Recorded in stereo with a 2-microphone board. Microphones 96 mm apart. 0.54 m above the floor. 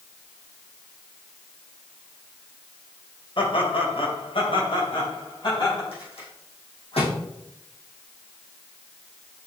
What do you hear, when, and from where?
3.4 s laughter: 60° left (ahead or behind), 2.5 m; by 5.8 s 50° left (ahead or behind), 4 m
5.9 s a rattle: 75° left (ahead or behind), 5 m